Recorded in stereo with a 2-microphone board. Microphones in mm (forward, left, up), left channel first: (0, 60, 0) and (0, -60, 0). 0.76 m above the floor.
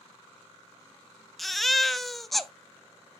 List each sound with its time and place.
1.4 s a baby crying: centre (ahead or behind), 0.5 m